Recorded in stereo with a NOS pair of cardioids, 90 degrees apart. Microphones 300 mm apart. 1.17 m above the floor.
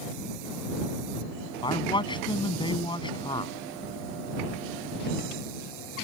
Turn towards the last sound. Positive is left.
turn(degrees=15)